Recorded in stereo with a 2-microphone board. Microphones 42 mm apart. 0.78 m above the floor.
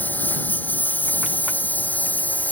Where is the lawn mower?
50° left (ahead or behind); by 2.5 s 45° left (ahead or behind).